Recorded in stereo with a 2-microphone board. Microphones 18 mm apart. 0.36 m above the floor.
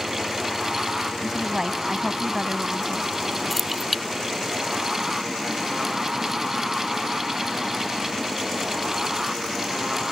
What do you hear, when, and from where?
1.2 s a woman speaking: 35° right (ahead or behind)
3.5 s keys jangling: 5° left (ahead or behind)